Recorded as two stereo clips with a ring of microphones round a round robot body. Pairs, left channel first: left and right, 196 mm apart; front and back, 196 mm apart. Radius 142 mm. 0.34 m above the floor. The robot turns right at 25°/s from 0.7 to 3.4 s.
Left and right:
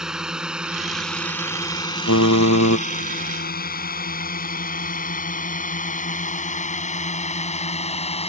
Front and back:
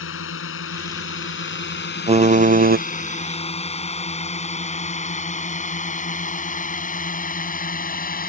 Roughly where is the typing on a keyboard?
Behind left.